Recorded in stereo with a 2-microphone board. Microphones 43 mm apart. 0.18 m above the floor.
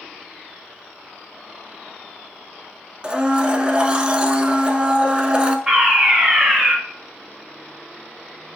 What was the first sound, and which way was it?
A blender, 20° right (ahead or behind).